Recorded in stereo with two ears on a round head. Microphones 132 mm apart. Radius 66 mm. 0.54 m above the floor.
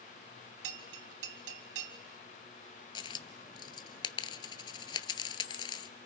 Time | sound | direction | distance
0.6 | a bell | 85° right | 1.5 m
3.0 | a dropped coin | 30° left (ahead or behind) | 0.8 m